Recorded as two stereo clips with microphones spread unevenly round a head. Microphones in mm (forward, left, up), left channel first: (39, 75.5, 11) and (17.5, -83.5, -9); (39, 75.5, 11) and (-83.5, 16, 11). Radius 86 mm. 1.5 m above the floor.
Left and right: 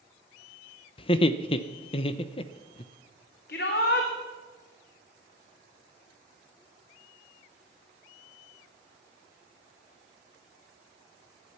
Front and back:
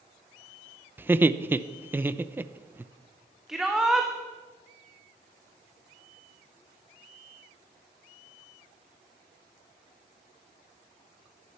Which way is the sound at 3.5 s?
120° left.